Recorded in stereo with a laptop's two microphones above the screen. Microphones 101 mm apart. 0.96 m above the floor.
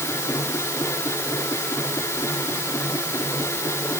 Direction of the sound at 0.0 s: 25° left (ahead or behind).